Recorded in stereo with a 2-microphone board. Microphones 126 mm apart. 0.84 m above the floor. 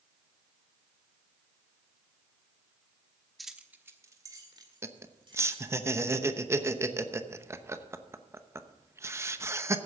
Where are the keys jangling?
Centre (ahead or behind), 1.0 m; by 5.7 s 45° right (ahead or behind), 3 m.